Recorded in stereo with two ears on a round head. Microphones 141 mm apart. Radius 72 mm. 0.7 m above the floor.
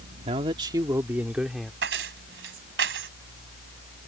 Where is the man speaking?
40° right (ahead or behind); by 1.7 s centre (ahead or behind).